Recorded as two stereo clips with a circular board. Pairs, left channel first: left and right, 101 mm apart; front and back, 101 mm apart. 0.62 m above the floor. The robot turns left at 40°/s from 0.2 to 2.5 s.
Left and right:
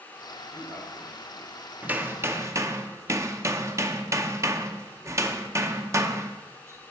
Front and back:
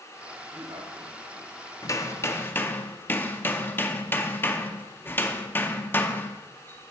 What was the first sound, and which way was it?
A man speaking, 150° right.